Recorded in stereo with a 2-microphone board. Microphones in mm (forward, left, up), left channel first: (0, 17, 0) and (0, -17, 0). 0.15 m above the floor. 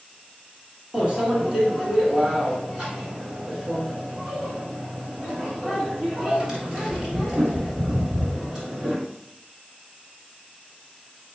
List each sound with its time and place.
0.9 s a microwave: 20° right (ahead or behind), 1.6 m